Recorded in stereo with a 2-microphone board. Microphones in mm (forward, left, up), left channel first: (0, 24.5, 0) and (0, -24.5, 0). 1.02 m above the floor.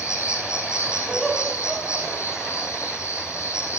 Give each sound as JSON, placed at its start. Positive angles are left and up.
{"t": 0.0, "sound": "an insect", "side_deg": 75, "distance_m": 7.5}
{"t": 1.1, "sound": "laughter", "side_deg": 5, "distance_m": 7.0}